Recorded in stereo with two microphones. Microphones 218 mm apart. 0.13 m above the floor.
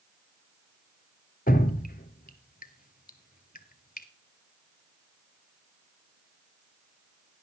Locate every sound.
1.5 s dripping: 45° left (ahead or behind), 0.9 m